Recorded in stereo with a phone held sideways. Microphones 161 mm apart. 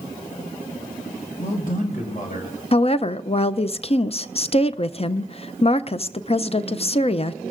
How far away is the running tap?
I don't hear a running tap.